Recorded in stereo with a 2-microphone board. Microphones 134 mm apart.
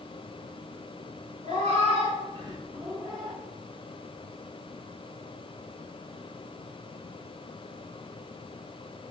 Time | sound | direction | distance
1.4 | a cat meowing | 55° right (ahead or behind) | 1.4 m